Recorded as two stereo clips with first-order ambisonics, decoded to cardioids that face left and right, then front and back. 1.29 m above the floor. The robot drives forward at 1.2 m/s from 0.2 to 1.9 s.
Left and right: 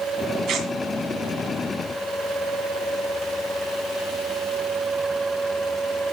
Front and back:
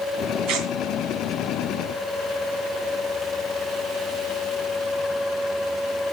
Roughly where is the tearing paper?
Behind right.